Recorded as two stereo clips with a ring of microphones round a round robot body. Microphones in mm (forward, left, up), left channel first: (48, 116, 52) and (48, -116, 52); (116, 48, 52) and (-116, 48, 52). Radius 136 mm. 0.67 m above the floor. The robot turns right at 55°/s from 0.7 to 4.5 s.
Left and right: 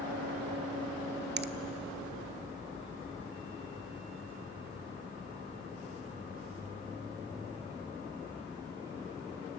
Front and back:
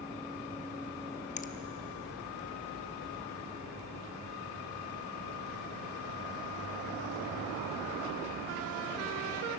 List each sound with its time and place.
1.4 s a finger snap: 55° right, 0.6 m; by 1.5 s 45° right, 0.6 m